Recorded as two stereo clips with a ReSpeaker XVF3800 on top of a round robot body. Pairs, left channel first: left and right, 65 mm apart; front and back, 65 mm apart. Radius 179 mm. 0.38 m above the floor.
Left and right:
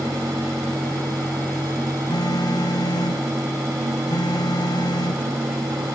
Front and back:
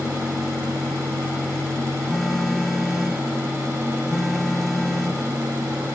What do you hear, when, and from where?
2.1 s a phone buzzing: 85° left